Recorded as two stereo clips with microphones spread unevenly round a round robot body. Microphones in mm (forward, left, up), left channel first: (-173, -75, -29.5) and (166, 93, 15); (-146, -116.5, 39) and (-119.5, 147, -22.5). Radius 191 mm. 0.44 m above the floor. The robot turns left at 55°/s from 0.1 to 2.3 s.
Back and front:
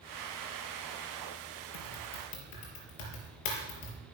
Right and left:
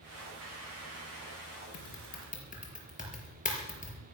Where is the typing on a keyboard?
130° right, 5 m; by 4.0 s 160° right, 5 m.